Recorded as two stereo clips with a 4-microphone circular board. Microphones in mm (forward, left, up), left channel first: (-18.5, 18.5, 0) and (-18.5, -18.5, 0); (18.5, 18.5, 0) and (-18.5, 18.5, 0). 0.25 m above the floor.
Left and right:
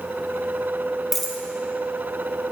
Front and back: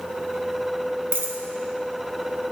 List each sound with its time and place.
1.1 s a dropped coin: 175° left, 1.0 m